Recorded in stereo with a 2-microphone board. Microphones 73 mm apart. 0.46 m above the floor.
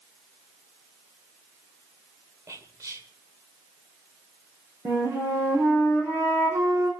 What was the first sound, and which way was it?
Whispering, 50° right (ahead or behind).